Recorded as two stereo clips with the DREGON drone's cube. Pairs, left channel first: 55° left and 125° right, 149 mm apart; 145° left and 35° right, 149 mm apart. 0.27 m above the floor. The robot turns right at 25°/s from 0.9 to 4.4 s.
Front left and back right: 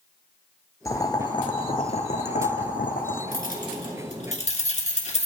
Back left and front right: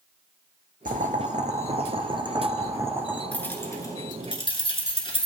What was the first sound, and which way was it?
Boiling, 10° right.